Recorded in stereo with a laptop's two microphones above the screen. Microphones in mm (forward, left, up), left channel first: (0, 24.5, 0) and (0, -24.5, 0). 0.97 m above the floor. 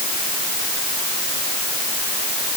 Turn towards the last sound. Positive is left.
No sound to turn to.